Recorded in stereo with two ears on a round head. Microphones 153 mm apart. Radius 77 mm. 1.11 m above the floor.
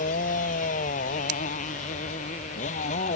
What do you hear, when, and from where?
0.0 s a motorcycle: 50° left (ahead or behind); by 3.2 s 45° left (ahead or behind)
1.3 s scissors: 70° right (ahead or behind)